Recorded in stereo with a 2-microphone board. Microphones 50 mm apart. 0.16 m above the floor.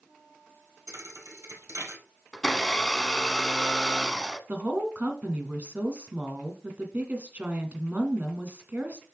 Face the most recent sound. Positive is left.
turn(degrees=-35)  # may be behind; listen again after turning